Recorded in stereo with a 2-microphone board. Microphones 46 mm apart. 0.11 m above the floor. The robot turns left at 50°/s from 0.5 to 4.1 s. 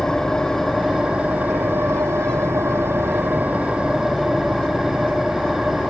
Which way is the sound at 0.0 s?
5° left.